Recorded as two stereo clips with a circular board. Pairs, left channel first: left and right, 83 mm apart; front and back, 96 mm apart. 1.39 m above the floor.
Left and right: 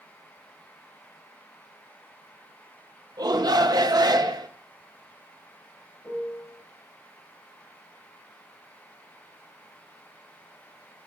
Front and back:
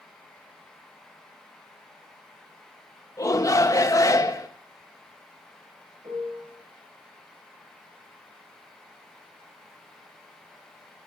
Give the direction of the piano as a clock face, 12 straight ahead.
7 o'clock.